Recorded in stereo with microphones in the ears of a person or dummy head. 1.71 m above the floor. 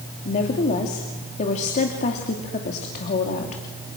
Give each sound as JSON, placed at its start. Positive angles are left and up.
{"t": 0.2, "sound": "a woman speaking", "side_deg": 40, "distance_m": 3.0}